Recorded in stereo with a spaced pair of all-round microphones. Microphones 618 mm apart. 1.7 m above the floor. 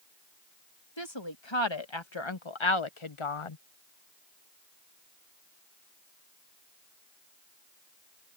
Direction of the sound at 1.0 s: 45° left (ahead or behind).